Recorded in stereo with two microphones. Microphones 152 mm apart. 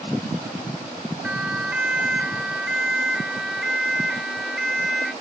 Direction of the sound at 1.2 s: 5° right (ahead or behind).